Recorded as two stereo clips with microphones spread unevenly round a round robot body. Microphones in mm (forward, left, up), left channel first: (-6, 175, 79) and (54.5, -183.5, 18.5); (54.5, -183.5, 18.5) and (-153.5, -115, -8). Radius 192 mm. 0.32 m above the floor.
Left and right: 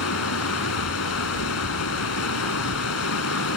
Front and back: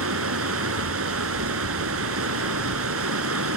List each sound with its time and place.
0.0 s running water: 150° left